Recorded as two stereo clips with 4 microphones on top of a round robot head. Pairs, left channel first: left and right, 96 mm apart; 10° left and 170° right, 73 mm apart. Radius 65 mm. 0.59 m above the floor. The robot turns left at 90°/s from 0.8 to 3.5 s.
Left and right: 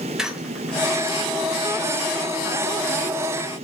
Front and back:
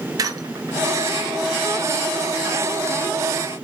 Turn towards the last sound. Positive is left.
turn(degrees=-55)